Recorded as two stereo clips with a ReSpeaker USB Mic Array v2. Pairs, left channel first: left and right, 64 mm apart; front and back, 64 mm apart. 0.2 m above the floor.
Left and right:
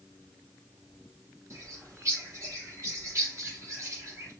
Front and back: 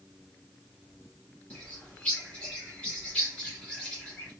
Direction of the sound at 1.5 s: 65° right.